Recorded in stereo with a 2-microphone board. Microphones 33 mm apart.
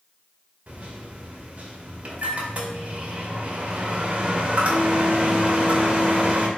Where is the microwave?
40° right (ahead or behind), 0.7 m.